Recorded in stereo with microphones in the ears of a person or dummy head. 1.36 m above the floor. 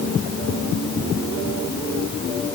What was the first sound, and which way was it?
Only background noise.